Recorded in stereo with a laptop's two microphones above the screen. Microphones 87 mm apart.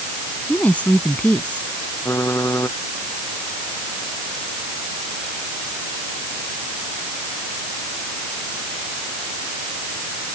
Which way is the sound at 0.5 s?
15° left (ahead or behind).